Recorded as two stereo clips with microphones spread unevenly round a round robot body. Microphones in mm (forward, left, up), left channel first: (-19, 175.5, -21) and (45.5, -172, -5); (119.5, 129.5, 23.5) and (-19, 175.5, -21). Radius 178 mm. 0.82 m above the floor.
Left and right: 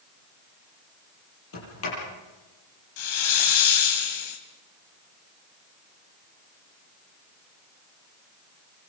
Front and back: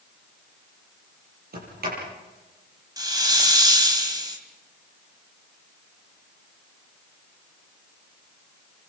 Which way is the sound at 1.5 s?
155° left.